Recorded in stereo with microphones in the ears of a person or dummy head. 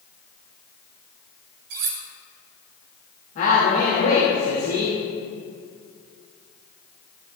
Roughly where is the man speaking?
Left.